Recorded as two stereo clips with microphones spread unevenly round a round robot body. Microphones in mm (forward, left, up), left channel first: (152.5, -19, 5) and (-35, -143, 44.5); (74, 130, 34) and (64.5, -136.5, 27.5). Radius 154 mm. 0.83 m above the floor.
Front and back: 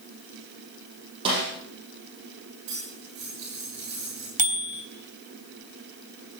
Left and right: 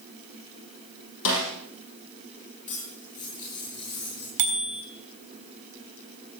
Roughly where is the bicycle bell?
Right.